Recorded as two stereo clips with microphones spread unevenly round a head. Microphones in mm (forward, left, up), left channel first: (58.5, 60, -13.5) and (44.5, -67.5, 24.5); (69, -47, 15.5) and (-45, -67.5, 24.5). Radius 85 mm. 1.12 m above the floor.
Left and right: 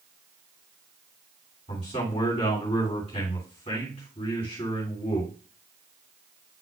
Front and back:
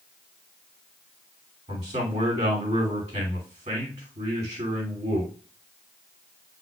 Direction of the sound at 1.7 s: 140° left.